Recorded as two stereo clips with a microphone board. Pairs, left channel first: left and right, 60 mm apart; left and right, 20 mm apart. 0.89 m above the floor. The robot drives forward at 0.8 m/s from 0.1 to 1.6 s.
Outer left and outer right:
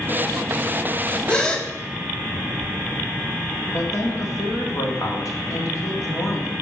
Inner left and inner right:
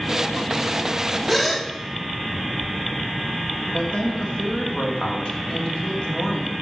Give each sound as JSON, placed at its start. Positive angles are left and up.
{"t": 1.3, "sound": "a gasp", "side_deg": 15, "distance_m": 0.7}
{"t": 3.7, "sound": "a woman speaking", "side_deg": 60, "distance_m": 1.9}